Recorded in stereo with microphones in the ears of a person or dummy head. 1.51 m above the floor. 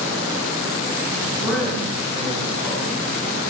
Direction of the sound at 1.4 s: 5° left (ahead or behind).